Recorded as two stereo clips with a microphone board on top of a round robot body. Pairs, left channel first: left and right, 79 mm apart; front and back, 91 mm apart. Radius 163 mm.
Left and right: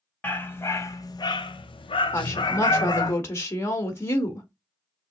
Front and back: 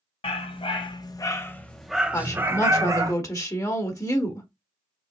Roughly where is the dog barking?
Ahead.